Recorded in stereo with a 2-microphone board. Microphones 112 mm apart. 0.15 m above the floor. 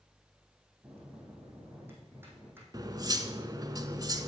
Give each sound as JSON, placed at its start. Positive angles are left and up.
{"t": 0.8, "sound": "a bell", "side_deg": -20, "distance_m": 3.5}
{"t": 2.7, "sound": "cutlery clinking", "side_deg": -35, "distance_m": 1.0}